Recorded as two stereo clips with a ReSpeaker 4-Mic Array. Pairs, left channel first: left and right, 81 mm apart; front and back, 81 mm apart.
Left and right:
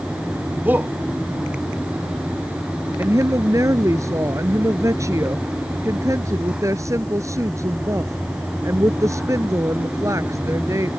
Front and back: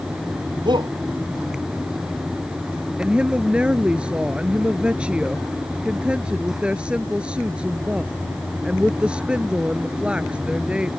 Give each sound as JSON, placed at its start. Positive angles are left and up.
{"t": 0.7, "sound": "a shout", "azimuth_deg": -160}
{"t": 3.0, "sound": "a woman speaking", "azimuth_deg": -110}